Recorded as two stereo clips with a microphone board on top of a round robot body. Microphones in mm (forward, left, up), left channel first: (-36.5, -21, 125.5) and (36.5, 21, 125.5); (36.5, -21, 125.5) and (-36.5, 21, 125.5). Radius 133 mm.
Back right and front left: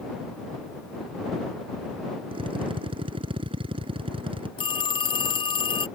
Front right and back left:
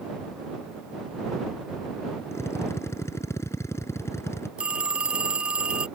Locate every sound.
2.3 s a drill: 25° left
4.6 s a phone ringing: 135° right